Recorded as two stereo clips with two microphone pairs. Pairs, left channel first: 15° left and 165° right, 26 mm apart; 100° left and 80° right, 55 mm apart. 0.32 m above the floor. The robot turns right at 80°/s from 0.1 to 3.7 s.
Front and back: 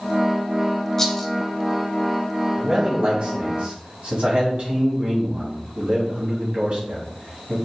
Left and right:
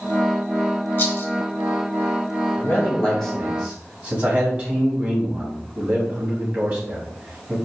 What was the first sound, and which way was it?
A rattle, 75° left.